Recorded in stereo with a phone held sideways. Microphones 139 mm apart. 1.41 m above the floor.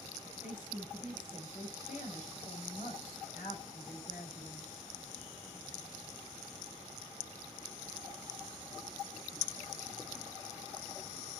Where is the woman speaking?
55° left (ahead or behind), 6 m.